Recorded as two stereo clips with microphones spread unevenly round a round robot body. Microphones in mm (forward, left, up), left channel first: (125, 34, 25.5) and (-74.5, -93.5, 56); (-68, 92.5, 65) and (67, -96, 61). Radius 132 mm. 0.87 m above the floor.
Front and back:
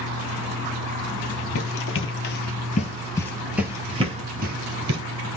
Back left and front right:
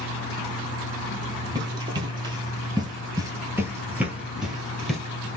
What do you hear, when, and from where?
1.6 s running footsteps: 15° left, 1.3 m; by 5.0 s 145° right, 1.3 m